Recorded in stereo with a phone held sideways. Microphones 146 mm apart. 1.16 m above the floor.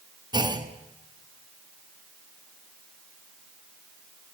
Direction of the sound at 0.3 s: 30° right (ahead or behind).